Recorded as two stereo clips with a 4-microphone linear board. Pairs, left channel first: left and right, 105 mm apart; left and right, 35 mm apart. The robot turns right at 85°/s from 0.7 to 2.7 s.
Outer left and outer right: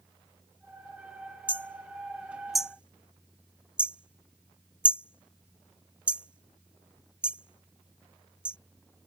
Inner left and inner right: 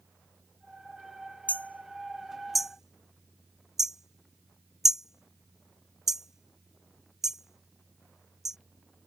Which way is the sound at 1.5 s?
55° left (ahead or behind).